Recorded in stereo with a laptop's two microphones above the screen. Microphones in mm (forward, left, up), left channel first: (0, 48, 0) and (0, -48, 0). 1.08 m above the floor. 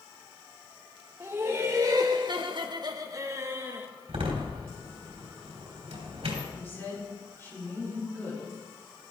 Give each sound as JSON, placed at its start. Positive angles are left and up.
{"t": 1.2, "sound": "laughter", "side_deg": -25, "distance_m": 1.2}
{"t": 4.1, "sound": "a door slam", "side_deg": -85, "distance_m": 3.5}
{"t": 6.5, "sound": "a woman speaking", "side_deg": 25, "distance_m": 3.5}